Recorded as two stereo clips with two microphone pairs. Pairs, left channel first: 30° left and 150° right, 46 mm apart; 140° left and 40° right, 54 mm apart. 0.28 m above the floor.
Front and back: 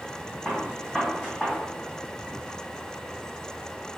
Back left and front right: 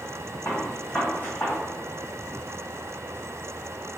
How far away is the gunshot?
About 1.5 m.